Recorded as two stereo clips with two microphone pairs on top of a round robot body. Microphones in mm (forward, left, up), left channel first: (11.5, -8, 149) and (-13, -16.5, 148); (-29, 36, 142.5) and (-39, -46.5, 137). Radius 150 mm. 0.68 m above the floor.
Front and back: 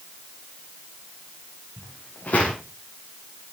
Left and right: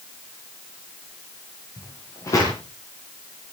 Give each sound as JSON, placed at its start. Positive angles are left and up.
{"t": 1.8, "sound": "footsteps", "azimuth_deg": 30, "distance_m": 6.0}